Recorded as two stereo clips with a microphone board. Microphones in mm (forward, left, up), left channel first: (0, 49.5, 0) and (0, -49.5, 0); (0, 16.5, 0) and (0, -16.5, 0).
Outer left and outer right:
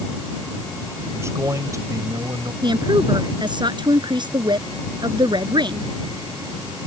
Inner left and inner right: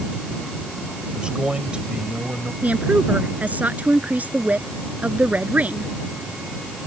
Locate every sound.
1.1 s a man speaking: 30° right (ahead or behind); by 2.5 s 40° right (ahead or behind)
2.6 s a woman speaking: 55° right (ahead or behind)